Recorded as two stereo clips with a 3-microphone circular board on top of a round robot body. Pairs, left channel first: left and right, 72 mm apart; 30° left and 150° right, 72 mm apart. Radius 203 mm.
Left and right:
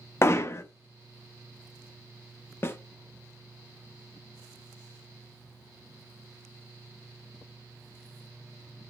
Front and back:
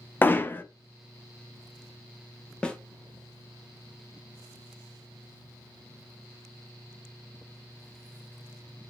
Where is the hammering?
75° left, 0.7 m.